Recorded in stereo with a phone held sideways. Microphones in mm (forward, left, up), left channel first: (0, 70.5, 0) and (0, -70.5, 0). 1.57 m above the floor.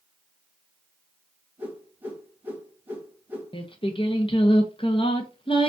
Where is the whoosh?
15° right (ahead or behind), 1.6 m.